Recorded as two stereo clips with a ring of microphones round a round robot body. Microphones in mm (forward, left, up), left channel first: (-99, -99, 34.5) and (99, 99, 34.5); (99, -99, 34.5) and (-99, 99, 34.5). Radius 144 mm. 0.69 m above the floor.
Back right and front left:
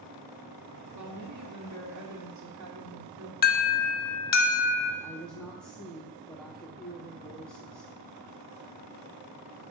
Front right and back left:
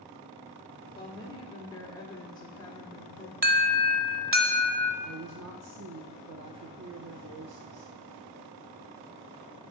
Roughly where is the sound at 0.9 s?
Ahead left.